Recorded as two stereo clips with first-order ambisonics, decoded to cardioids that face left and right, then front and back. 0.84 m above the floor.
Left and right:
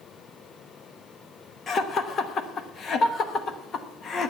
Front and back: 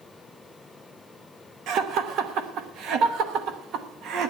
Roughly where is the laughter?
Behind left.